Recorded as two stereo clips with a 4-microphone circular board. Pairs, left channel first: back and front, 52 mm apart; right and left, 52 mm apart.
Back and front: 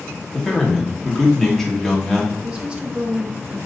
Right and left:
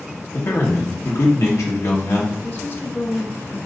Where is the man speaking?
95° right, 1.3 m.